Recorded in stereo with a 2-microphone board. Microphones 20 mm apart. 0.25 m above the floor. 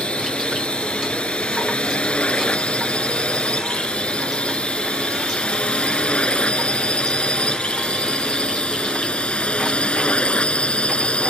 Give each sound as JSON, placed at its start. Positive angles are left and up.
{"t": 0.0, "sound": "a drone", "side_deg": 70}